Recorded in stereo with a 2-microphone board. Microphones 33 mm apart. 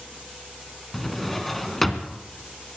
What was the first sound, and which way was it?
A drawer, 5° left (ahead or behind).